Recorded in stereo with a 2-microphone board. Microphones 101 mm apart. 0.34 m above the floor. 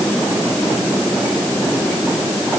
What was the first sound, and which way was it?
Only background noise.